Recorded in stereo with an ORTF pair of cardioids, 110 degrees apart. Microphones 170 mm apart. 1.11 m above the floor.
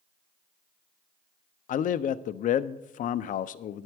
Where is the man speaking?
55° left, 0.6 m.